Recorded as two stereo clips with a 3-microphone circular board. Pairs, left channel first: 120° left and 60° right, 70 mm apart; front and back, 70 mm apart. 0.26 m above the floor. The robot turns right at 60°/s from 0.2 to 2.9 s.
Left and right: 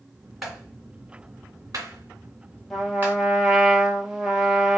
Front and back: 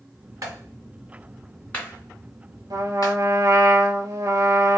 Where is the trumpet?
150° right, 1.0 m; by 4.8 s 140° right, 1.0 m.